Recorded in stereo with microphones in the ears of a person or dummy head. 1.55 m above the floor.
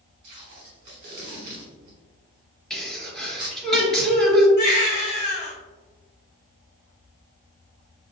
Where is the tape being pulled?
20° right (ahead or behind), 1.3 m.